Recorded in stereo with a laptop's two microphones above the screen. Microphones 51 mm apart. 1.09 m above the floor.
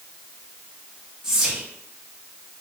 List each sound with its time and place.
1.2 s whispering: 10° right (ahead or behind), 0.8 m